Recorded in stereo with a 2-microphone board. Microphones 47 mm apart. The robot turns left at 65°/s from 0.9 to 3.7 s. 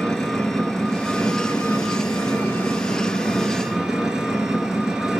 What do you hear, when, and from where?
0.0 s an engine running: 170° left, 1.4 m; by 5.2 s 15° right, 1.4 m